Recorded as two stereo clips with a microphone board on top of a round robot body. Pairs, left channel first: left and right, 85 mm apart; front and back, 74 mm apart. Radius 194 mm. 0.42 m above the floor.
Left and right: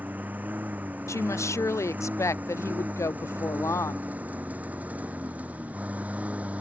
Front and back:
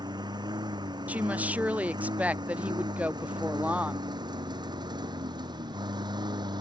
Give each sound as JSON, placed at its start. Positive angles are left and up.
{"t": 0.0, "sound": "a lawn mower", "azimuth_deg": -160}
{"t": 1.1, "sound": "a woman speaking", "azimuth_deg": 120}